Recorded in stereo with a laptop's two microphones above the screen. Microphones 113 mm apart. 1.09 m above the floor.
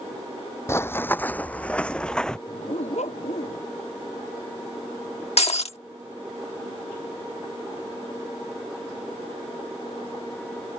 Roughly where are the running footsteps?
Left.